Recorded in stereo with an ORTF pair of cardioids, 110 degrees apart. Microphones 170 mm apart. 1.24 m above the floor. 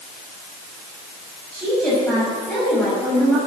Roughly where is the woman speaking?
Ahead.